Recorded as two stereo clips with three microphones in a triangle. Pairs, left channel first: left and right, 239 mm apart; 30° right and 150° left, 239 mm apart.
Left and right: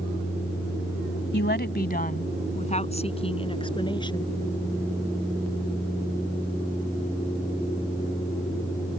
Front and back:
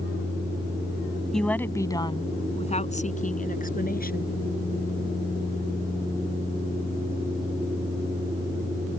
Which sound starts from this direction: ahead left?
A woman speaking, at 1.3 s.